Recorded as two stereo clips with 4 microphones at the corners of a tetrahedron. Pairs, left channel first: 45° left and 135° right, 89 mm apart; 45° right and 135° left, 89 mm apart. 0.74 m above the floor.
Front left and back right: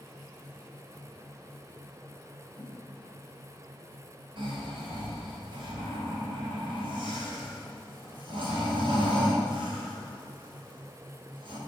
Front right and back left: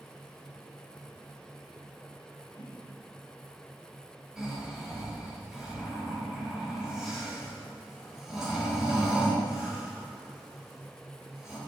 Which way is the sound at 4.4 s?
140° right.